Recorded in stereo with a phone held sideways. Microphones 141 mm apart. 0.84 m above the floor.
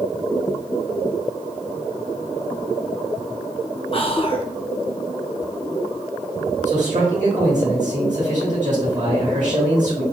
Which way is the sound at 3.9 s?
40° left (ahead or behind).